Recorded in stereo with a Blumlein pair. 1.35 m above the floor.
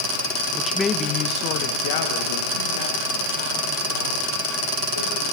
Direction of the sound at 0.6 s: 5° right.